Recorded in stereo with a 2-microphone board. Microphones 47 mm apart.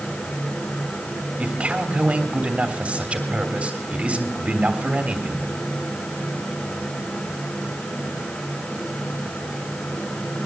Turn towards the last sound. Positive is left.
turn(degrees=-20)  # may be behind; listen again after turning